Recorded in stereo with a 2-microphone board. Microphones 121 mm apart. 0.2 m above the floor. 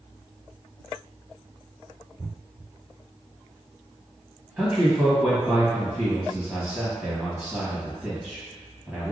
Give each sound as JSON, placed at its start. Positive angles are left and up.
{"t": 4.6, "sound": "a man speaking", "side_deg": -5, "distance_m": 1.1}